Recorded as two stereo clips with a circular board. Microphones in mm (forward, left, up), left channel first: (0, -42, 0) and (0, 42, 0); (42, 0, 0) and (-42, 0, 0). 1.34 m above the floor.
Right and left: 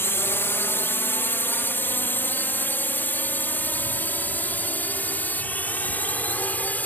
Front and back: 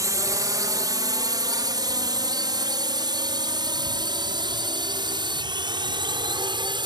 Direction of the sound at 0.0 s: 145° right.